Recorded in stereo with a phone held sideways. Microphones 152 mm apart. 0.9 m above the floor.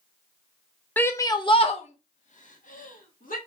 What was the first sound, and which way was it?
A shout, 10° left (ahead or behind).